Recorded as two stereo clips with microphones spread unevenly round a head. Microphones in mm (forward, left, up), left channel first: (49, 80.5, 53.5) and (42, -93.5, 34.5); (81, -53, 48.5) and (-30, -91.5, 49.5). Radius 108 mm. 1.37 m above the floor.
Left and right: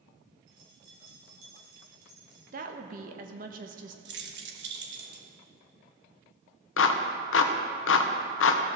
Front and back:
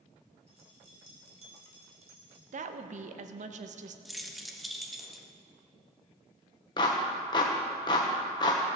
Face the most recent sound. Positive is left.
turn(degrees=85)